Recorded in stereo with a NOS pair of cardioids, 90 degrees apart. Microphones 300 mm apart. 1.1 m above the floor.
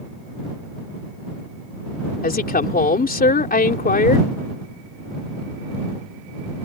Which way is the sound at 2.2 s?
30° left.